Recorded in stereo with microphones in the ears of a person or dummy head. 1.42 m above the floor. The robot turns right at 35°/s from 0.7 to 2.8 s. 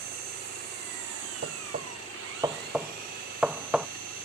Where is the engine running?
125° right; by 4.2 s 50° right.